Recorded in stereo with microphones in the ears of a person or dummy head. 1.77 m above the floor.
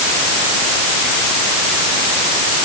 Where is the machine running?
I don't hear a machine running.